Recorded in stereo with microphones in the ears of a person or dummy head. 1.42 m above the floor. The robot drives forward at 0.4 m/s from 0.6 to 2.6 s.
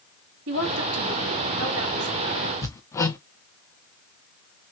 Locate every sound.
0.5 s a woman speaking: 85° right, 2.5 m; by 2.5 s 80° right, 3 m
2.6 s hammering: 15° left (ahead or behind), 0.8 m